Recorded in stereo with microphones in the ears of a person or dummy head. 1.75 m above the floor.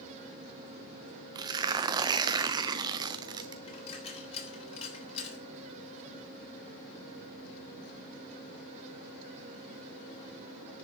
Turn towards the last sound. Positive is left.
turn(degrees=40)  # may be behind; listen again after turning